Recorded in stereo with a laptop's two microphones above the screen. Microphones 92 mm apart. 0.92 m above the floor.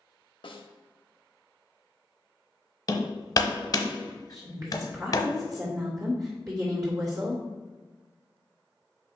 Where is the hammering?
40° left (ahead or behind), 0.8 m.